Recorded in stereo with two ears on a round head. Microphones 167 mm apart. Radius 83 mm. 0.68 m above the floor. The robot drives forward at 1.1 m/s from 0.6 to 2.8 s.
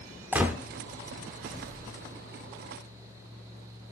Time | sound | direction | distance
0.3 | a gunshot | 10° right (ahead or behind) | 0.7 m